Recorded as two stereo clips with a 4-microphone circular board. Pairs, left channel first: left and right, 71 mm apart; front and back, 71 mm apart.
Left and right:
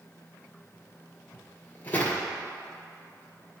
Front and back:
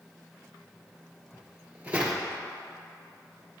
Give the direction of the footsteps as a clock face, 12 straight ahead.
8 o'clock.